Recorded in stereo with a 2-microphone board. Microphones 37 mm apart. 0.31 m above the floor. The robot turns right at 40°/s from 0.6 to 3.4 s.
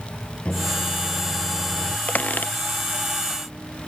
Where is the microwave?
145° left; by 2.0 s 160° right.